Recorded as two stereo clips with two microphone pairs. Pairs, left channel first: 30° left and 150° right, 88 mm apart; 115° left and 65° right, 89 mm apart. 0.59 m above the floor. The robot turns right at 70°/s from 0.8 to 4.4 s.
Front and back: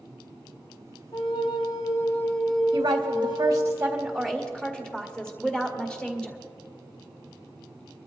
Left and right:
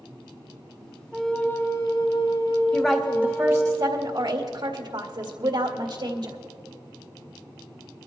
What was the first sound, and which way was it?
A flute, 25° left.